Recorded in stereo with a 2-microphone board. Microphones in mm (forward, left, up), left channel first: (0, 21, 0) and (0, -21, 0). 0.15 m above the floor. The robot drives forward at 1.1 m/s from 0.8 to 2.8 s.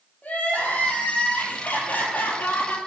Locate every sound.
0.2 s crying: 35° left (ahead or behind), 4.5 m; by 2.8 s 55° left (ahead or behind), 3.5 m